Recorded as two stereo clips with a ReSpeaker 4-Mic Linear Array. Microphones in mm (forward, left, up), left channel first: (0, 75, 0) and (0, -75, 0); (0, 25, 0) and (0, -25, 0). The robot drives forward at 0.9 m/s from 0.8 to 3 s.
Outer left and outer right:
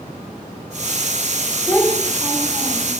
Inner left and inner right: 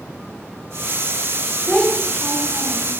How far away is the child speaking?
About 1.1 m.